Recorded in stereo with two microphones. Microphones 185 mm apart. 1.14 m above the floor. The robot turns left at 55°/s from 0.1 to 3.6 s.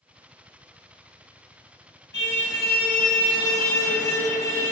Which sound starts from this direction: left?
A car horn, at 2.1 s.